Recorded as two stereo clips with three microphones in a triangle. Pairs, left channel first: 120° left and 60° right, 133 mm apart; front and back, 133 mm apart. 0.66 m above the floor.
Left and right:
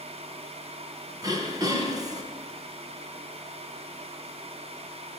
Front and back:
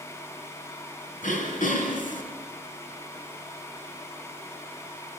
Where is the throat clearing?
Straight ahead, 4 m.